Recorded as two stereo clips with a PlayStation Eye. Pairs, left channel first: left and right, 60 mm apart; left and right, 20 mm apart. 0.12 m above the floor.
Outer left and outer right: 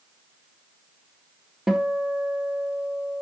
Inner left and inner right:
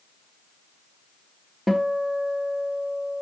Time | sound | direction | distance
1.7 | a guitar | 10° right (ahead or behind) | 1.0 m